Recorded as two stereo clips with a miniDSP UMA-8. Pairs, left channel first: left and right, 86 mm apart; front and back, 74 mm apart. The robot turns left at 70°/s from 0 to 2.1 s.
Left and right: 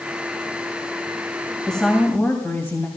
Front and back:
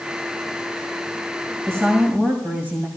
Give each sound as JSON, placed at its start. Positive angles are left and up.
{"t": 1.7, "sound": "a woman speaking", "azimuth_deg": 175, "distance_m": 1.7}